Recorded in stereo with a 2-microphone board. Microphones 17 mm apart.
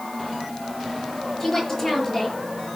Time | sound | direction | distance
1.4 | a woman speaking | 15° left (ahead or behind) | 6 m